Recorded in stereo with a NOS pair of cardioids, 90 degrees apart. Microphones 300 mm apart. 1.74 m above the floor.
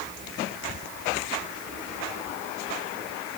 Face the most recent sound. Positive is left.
No sound to turn to.